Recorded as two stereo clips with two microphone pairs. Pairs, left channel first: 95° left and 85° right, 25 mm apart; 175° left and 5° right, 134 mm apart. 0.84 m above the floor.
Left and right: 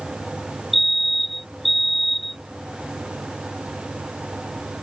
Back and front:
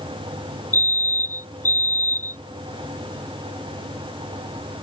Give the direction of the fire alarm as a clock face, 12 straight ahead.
6 o'clock.